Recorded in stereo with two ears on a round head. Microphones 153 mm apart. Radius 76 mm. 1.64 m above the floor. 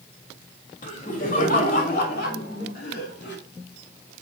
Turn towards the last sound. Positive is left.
turn(degrees=70)  # may be behind; listen again after turning